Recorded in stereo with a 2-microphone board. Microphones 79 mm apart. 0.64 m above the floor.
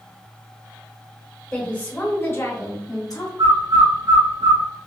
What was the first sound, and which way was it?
A woman speaking, 10° left (ahead or behind).